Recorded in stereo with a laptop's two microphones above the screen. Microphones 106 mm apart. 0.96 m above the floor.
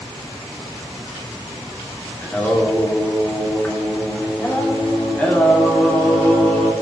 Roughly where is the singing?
Centre.